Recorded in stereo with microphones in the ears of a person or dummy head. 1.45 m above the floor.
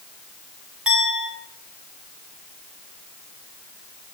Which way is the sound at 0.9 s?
Centre (ahead or behind).